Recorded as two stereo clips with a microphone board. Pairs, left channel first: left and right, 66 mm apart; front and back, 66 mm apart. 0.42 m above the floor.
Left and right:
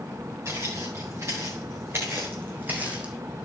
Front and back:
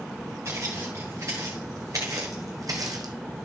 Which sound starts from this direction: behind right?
Footsteps, at 0.5 s.